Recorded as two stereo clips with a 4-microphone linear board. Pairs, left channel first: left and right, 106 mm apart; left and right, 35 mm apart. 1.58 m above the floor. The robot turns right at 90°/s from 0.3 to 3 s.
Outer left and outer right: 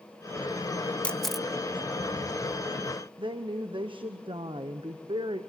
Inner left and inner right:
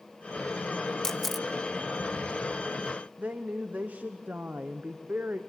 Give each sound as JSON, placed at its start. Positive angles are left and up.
{"t": 1.0, "sound": "a camera shutter", "side_deg": 10, "distance_m": 0.6}
{"t": 3.2, "sound": "a woman speaking", "side_deg": -50, "distance_m": 1.0}